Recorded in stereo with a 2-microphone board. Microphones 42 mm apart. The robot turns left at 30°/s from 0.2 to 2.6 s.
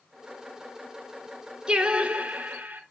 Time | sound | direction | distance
1.7 | singing | 20° right (ahead or behind) | 2.5 m